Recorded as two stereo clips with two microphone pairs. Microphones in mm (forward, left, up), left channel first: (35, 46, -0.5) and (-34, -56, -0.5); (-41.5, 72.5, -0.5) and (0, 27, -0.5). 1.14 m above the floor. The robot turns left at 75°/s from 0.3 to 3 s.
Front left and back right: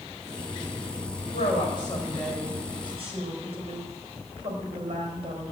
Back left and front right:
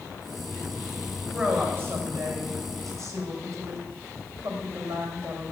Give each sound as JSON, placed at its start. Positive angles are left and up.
{"t": 1.3, "sound": "a woman speaking", "azimuth_deg": 40, "distance_m": 4.5}